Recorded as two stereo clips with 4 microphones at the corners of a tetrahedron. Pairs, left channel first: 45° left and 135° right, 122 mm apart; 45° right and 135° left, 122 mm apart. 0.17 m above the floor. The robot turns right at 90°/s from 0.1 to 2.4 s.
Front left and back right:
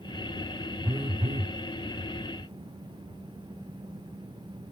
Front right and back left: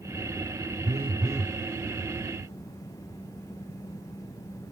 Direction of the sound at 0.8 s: 155° left.